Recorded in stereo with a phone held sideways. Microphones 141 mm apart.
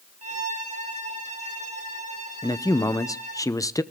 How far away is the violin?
About 2.5 m.